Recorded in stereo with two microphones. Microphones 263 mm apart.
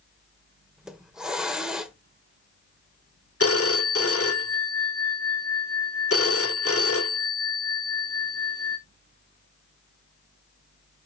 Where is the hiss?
Centre (ahead or behind), 1.1 m.